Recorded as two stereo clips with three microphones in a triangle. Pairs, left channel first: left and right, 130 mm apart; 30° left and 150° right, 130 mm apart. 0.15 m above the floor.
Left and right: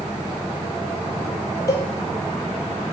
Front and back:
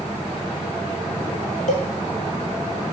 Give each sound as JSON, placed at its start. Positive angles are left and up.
{"t": 1.7, "sound": "a cowbell", "azimuth_deg": 30, "distance_m": 0.8}